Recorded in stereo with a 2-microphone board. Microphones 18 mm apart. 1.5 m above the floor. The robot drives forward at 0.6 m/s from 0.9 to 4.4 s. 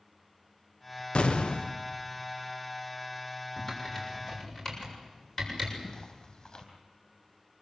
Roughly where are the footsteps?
Left.